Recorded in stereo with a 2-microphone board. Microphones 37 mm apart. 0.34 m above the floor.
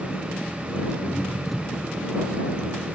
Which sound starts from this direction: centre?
An engine running, at 0.0 s.